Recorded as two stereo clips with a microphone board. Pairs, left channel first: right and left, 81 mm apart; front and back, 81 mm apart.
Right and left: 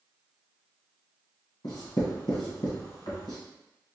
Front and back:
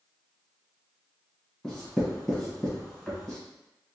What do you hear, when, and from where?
1.6 s writing: 85° right, 1.4 m